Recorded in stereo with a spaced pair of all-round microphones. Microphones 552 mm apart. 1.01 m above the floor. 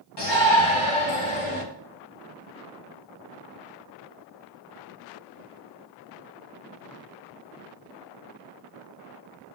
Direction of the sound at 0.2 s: 45° left (ahead or behind).